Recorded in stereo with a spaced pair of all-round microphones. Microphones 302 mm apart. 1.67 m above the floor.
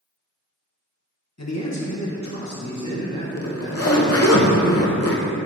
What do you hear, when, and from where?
1.4 s a man speaking: 60° left (ahead or behind), 1.4 m; by 4.4 s 75° left (ahead or behind), 3.5 m
3.4 s a zipper: 50° left (ahead or behind), 0.8 m